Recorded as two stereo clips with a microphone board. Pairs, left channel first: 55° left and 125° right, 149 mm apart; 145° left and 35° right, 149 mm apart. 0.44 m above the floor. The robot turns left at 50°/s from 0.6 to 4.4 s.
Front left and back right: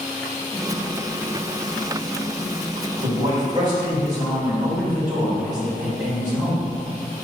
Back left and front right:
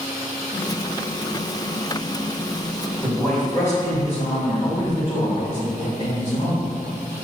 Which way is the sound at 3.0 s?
125° right.